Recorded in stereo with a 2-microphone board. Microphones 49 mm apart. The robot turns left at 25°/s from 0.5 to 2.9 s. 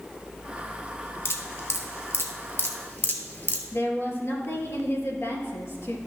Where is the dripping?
60° left (ahead or behind), 1.3 m; by 3.6 s 40° left (ahead or behind), 1.3 m.